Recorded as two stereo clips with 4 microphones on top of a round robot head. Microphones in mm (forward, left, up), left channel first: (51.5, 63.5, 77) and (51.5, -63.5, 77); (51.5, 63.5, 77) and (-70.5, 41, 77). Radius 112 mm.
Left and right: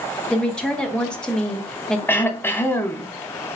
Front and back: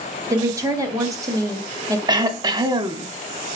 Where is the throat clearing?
155° left, 0.6 m.